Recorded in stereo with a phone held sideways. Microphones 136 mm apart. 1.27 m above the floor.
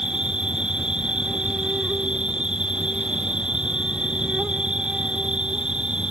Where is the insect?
5° right (ahead or behind).